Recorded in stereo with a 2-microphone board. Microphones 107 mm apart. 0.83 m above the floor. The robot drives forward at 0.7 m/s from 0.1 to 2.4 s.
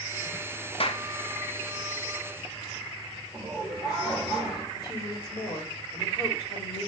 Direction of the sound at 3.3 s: 10° left (ahead or behind).